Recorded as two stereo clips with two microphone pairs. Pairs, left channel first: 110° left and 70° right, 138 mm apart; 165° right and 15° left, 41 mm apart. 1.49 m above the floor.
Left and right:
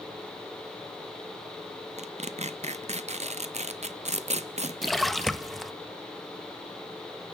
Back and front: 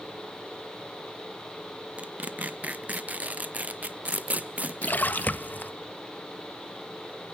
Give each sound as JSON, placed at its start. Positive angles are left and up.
{"t": 2.0, "sound": "tearing paper", "azimuth_deg": -35, "distance_m": 0.7}
{"t": 4.8, "sound": "a splash", "azimuth_deg": -160, "distance_m": 0.7}